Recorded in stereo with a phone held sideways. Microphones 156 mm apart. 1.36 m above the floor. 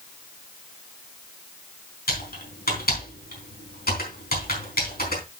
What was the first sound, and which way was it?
Typing on a keyboard, 75° left (ahead or behind).